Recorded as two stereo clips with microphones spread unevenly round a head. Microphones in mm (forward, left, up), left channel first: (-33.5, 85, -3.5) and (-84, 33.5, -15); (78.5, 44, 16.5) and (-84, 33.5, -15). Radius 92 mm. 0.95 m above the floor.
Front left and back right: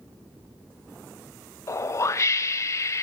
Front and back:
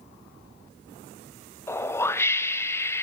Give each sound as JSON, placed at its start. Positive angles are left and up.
{"t": 1.7, "sound": "a whoosh", "azimuth_deg": 85, "distance_m": 0.8}